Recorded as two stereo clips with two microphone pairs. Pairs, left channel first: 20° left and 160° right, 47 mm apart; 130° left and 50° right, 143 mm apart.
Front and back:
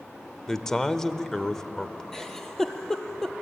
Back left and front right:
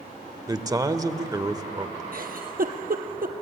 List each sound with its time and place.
0.5 s a man speaking: 45° right, 0.9 m
2.1 s a giggle: 60° right, 1.7 m